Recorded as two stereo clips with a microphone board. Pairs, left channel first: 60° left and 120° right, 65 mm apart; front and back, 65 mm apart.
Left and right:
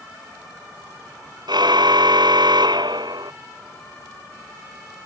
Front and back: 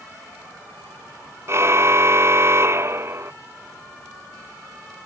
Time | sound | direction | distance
1.5 | a car horn | 130° right | ?